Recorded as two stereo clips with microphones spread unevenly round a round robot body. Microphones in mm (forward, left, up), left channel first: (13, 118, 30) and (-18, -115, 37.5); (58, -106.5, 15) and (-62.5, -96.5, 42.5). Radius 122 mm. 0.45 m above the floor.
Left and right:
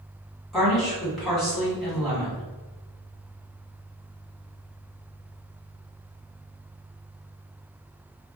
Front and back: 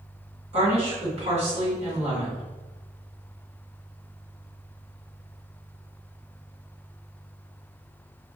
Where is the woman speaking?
170° left, 1.7 m.